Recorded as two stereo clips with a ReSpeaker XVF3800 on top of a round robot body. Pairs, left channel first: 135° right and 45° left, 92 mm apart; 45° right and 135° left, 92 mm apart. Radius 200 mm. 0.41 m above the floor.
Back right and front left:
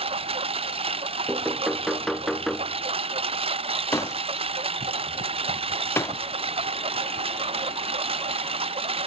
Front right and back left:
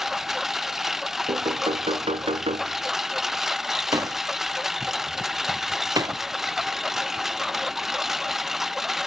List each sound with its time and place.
0.0 s a lawn mower: 50° left
1.3 s knocking: 135° left
3.9 s a door slam: 170° left